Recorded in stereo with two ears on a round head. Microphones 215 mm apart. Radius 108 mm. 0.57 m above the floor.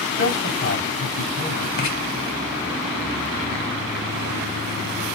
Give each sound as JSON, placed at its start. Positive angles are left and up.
{"t": 0.2, "sound": "a man speaking", "side_deg": 50, "distance_m": 3.0}
{"t": 1.8, "sound": "writing", "side_deg": 40, "distance_m": 1.9}